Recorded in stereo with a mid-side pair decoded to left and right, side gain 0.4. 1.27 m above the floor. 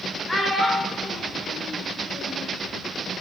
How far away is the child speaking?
About 1.2 m.